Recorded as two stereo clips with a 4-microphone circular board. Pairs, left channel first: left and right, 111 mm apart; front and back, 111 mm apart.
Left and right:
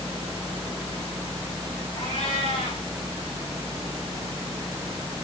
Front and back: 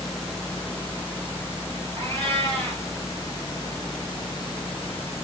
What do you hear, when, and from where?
2.0 s a cat meowing: 130° left, 9.5 m